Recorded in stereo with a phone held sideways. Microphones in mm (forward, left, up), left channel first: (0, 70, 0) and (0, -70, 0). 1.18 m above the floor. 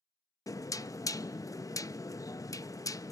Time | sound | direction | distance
0.5 | knocking | 25° left (ahead or behind) | 0.5 m